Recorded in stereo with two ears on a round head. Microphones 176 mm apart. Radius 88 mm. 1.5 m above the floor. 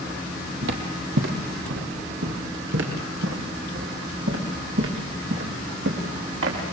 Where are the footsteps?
60° right (ahead or behind), 3 m; by 6.6 s 65° right (ahead or behind), 6.5 m.